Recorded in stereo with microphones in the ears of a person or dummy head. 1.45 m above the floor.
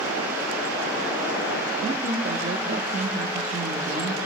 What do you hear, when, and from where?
1.8 s a woman speaking: 45° right (ahead or behind), 1.0 m